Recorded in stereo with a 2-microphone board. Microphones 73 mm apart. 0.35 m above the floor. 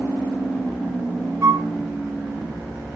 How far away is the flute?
About 2 m.